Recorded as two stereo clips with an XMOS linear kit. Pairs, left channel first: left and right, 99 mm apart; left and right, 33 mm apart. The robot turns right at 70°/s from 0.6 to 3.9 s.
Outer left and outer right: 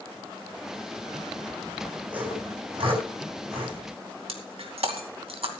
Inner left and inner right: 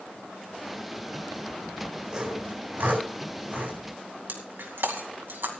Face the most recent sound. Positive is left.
turn(degrees=-75)  # may be behind; listen again after turning